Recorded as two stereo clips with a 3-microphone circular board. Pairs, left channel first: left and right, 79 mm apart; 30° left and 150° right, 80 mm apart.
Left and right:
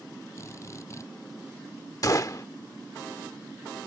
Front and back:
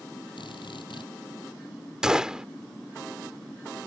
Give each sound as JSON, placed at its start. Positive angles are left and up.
{"t": 0.4, "sound": "a drill", "azimuth_deg": 35}
{"t": 2.0, "sound": "a gunshot", "azimuth_deg": 130}